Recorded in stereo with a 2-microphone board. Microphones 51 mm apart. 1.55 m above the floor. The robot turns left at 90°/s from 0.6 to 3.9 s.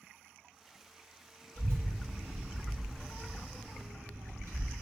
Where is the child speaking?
50° left (ahead or behind), 1.5 m; by 4.7 s 60° right (ahead or behind), 1.5 m.